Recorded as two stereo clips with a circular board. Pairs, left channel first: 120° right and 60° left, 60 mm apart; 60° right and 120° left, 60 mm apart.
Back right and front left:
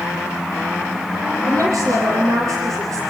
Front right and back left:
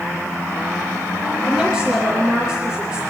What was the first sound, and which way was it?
A woman speaking, 40° left.